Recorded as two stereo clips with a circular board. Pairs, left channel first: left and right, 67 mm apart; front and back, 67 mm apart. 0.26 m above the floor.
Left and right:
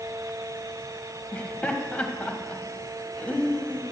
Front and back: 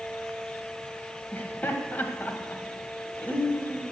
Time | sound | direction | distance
1.3 | laughter | 35° left | 1.4 m